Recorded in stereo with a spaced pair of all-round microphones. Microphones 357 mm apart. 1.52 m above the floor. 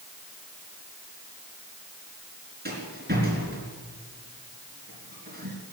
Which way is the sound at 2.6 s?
25° right (ahead or behind).